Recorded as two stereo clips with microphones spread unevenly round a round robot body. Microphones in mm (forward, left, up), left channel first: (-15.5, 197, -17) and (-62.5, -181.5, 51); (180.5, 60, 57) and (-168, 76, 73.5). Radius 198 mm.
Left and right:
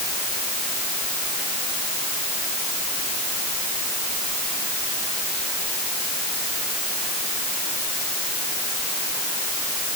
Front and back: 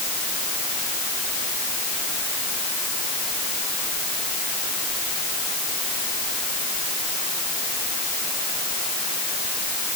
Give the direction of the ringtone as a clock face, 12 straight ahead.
No ringtone in this recording.